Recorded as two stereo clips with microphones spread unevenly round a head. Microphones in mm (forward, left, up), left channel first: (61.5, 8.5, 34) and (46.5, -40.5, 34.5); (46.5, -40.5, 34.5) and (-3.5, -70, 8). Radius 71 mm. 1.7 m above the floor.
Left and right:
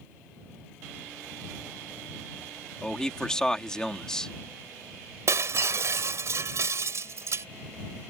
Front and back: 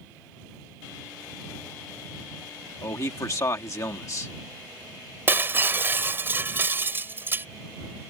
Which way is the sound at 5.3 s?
80° right.